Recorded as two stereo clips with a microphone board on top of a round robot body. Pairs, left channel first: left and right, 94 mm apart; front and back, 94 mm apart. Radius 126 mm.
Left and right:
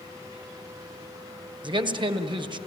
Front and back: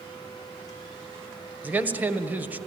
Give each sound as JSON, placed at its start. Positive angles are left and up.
{"t": 1.6, "sound": "a man speaking", "azimuth_deg": -110, "distance_m": 1.9}